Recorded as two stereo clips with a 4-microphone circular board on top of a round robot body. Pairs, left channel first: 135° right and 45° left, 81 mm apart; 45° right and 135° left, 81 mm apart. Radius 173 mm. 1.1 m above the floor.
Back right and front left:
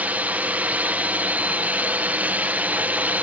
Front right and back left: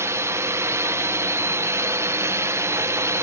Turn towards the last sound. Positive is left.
turn(degrees=105)